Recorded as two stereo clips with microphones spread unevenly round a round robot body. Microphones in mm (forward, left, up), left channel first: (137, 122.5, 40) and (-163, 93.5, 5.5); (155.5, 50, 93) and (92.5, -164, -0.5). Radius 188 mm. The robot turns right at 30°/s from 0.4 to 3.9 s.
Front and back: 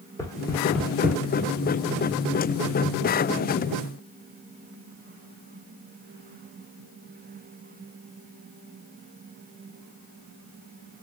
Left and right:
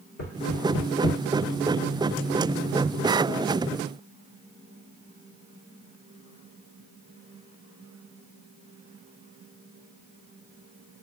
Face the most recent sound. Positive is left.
turn(degrees=-165)